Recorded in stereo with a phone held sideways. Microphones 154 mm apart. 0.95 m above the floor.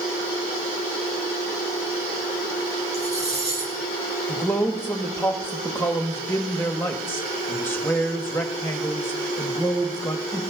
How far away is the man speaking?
About 1.4 m.